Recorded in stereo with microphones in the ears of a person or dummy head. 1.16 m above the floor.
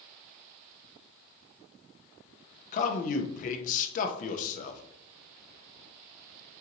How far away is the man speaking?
About 0.7 m.